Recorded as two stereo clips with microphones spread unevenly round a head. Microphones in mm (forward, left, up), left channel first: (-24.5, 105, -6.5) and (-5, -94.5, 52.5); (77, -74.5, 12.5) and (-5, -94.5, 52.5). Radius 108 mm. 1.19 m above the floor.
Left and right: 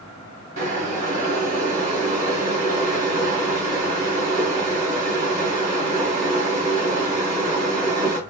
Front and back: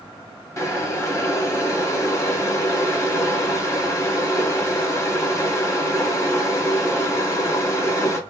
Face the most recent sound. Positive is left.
turn(degrees=-55)